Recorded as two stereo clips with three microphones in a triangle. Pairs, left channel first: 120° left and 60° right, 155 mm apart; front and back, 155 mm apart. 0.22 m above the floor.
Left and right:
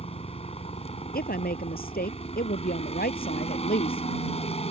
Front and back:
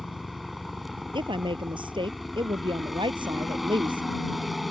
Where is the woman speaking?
125° left.